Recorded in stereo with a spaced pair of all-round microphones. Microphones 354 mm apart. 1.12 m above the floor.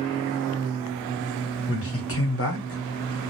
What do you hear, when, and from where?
1.7 s a man speaking: 40° left (ahead or behind), 1.1 m